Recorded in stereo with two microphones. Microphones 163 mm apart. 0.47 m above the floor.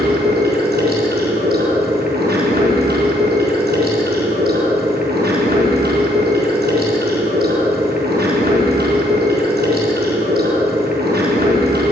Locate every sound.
0.0 s running water: 80° right, 4 m